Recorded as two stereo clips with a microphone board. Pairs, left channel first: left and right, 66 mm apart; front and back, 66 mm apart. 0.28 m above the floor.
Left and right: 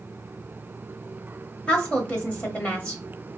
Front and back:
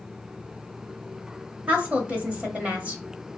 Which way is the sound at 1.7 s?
140° left.